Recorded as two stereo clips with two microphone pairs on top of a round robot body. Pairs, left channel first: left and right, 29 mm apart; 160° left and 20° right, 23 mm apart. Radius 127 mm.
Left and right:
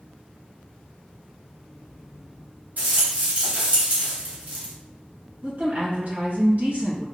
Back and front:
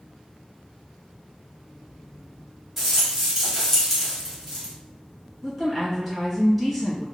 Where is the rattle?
105° right, 1.6 m.